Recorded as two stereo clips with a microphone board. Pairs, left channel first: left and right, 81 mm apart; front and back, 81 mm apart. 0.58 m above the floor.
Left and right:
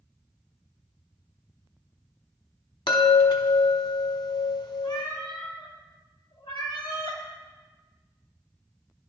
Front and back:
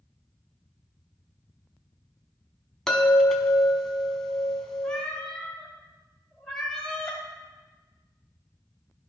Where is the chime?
85° left, 0.9 m.